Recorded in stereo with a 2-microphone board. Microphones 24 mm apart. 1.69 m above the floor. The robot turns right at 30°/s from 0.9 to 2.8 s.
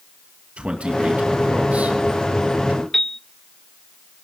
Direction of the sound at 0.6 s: 60° right (ahead or behind).